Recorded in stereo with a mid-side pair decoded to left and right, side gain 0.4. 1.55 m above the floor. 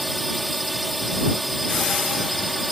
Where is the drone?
5° right.